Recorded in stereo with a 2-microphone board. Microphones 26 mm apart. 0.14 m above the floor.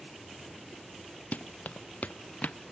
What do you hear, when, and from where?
1.3 s running footsteps: 70° left (ahead or behind); by 2.6 s 65° left (ahead or behind)